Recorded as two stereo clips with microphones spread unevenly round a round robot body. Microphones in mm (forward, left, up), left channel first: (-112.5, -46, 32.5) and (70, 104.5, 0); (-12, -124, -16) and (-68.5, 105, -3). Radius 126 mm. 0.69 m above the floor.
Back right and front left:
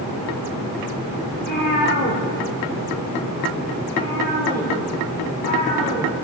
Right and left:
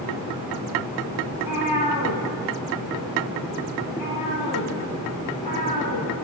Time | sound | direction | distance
1.3 | a cat meowing | 85° right | 4 m